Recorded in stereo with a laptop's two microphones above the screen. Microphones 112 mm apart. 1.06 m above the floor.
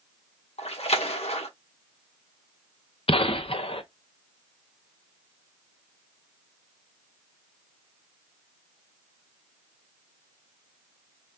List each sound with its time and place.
0.6 s a splash: 65° left (ahead or behind), 1.2 m
3.1 s a gunshot: 55° left (ahead or behind), 0.5 m